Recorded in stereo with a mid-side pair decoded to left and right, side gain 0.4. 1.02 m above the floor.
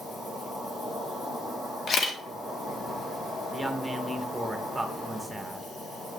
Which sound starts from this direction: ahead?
A woman speaking, at 3.5 s.